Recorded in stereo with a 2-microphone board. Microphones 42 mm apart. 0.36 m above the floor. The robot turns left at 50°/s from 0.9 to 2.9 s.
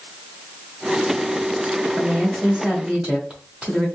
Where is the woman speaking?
20° right (ahead or behind), 1.4 m; by 3.9 s 25° right (ahead or behind), 1.4 m.